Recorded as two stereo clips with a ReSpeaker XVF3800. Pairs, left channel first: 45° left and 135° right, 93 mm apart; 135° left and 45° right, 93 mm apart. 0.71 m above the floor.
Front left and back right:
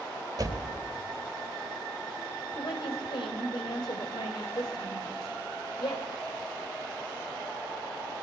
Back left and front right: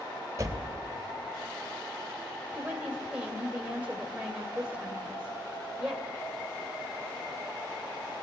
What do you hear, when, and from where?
0.4 s a door slam: 95° right, 2.5 m
2.5 s a woman speaking: 30° left, 2.5 m